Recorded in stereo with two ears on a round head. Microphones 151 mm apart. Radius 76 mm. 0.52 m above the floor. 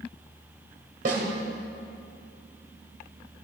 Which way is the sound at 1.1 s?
50° right (ahead or behind).